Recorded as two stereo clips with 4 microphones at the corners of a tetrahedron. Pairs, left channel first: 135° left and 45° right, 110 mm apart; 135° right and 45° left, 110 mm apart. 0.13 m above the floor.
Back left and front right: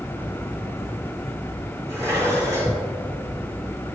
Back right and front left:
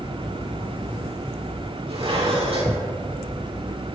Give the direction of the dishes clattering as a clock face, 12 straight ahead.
12 o'clock.